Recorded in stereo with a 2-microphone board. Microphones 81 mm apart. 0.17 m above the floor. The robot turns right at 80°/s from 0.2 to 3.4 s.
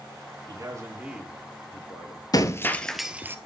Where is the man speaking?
65° right, 5 m; by 2.2 s 75° left, 5 m.